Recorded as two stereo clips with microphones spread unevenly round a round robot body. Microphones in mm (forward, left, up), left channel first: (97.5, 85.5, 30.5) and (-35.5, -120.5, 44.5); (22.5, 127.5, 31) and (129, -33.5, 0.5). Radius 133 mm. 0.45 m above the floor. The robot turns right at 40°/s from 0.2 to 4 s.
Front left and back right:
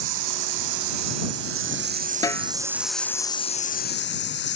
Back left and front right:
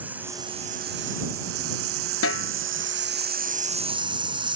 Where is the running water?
140° right; by 4.6 s 10° left.